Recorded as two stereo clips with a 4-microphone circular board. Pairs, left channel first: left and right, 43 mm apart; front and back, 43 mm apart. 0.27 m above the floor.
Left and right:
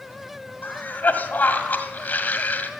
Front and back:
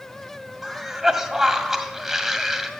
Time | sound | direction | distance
0.6 | a cough | 100° left | 1.9 m